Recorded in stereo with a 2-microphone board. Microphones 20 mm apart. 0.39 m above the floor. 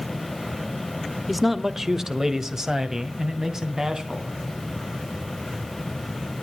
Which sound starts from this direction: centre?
A man speaking, at 1.3 s.